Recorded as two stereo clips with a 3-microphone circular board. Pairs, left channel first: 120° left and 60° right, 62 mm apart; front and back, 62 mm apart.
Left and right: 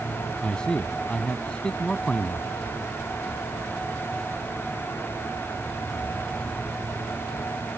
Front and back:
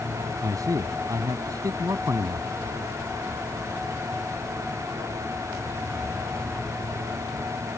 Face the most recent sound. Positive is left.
turn(degrees=-165)